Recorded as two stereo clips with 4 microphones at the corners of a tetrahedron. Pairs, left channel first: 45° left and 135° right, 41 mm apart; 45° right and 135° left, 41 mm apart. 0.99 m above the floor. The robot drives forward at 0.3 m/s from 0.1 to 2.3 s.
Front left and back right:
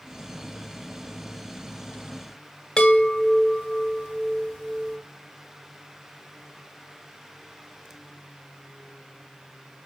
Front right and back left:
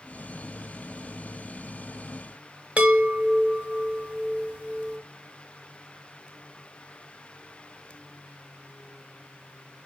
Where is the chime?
110° left, 0.7 m.